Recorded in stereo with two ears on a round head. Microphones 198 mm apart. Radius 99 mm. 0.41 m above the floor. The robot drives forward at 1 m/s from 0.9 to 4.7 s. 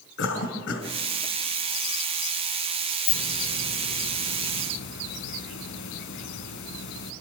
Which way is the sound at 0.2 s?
60° left (ahead or behind).